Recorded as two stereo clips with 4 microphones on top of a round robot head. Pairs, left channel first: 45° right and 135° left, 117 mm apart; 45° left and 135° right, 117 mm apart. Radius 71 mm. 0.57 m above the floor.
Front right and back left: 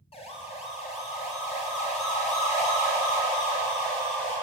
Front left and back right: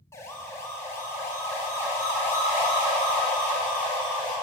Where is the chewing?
No chewing in this recording.